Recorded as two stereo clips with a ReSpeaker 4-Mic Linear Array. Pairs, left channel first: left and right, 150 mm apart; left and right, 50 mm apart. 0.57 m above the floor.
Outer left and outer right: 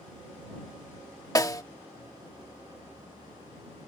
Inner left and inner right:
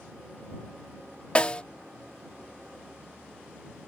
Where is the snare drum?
25° left (ahead or behind).